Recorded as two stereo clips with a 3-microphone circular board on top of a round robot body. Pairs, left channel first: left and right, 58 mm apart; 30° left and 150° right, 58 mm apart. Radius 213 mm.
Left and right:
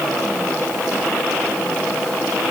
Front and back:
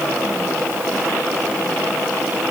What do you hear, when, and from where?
Only background noise.